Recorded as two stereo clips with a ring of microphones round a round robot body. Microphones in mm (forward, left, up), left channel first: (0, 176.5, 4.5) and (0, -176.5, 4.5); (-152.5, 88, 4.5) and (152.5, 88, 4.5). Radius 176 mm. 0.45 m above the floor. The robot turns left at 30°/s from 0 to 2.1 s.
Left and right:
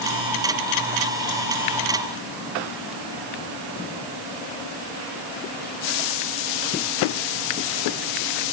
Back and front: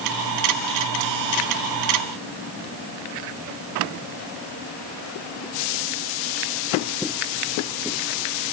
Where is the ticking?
I don't hear ticking.